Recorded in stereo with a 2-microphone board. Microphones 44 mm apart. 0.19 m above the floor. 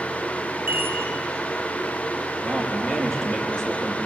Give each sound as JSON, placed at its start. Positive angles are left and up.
{"t": 0.7, "sound": "a chime", "side_deg": -50, "distance_m": 3.0}
{"t": 2.4, "sound": "a man speaking", "side_deg": 15, "distance_m": 4.5}